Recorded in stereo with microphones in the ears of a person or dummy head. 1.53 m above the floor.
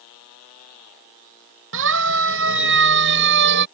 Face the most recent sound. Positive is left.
turn(degrees=-60)  # may be behind; listen again after turning